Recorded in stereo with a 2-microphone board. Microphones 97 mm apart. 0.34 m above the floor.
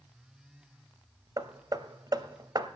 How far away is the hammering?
About 0.6 m.